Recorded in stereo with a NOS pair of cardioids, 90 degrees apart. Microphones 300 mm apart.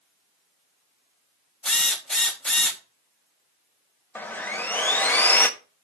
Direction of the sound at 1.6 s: Straight ahead.